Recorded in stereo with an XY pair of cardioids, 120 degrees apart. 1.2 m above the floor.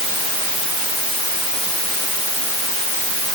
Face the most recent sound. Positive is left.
No sound to turn to.